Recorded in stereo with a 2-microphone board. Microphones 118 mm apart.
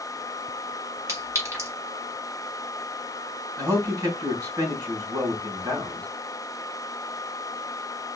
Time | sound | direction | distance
1.1 | a clink | 25° right (ahead or behind) | 2 m
3.6 | a man speaking | 30° right (ahead or behind) | 3.5 m